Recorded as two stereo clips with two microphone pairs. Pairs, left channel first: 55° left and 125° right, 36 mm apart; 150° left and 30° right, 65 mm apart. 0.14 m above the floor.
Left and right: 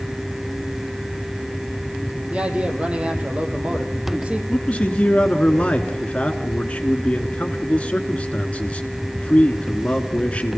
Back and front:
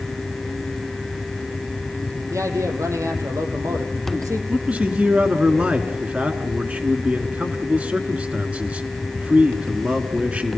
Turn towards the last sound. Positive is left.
turn(degrees=25)